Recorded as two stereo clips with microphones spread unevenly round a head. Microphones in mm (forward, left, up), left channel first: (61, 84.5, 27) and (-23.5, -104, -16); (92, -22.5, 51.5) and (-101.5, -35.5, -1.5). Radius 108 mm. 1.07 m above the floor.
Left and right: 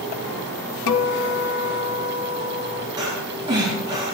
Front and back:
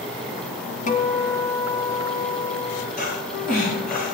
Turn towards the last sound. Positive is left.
turn(degrees=-40)